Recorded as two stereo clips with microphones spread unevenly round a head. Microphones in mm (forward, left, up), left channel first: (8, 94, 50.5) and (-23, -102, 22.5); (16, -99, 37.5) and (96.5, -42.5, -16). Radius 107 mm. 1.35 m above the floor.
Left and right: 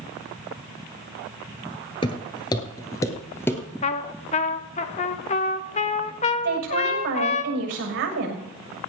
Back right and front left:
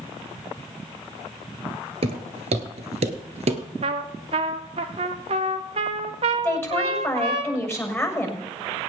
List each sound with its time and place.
2.0 s footsteps: 80° left, 1.4 m; by 3.6 s 15° left, 1.6 m
3.8 s a trumpet: 95° left, 0.7 m
6.4 s a woman speaking: 75° right, 6.5 m